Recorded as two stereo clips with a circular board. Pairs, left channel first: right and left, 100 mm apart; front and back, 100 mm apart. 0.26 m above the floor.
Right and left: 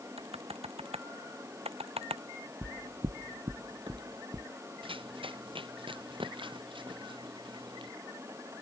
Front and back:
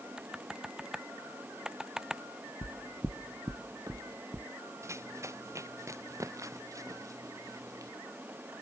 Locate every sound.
0.2 s typing on a keyboard: 100° left
2.6 s footsteps: 30° left; by 4.5 s 135° left
4.8 s running footsteps: 120° left; by 7.9 s 125° left